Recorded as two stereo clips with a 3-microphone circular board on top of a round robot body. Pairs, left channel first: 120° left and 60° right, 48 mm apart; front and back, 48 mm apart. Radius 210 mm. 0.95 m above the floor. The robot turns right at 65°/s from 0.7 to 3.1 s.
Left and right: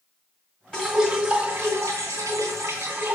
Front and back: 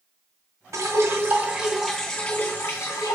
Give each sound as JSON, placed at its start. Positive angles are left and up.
{"t": 0.7, "sound": "dripping", "azimuth_deg": -170, "distance_m": 1.9}